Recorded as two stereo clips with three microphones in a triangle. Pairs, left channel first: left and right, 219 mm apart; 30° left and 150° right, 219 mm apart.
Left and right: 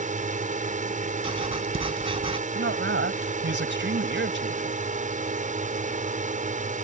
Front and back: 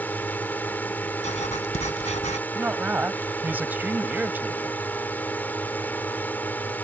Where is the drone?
50° right.